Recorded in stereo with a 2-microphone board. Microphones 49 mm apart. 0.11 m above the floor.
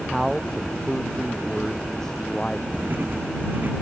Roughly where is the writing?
Right.